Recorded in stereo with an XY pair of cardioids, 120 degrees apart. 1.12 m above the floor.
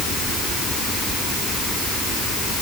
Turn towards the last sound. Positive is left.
No sound to turn to.